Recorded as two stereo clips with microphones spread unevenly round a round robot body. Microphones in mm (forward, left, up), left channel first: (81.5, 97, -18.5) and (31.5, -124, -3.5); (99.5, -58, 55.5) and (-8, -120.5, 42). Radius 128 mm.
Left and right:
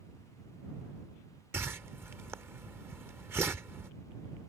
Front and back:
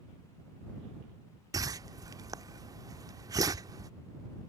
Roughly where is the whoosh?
Behind.